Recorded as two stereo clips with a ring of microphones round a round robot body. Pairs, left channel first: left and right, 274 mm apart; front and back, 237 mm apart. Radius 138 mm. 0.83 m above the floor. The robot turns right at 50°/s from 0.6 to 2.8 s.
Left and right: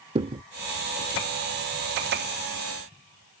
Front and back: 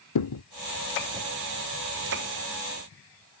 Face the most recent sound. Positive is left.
turn(degrees=90)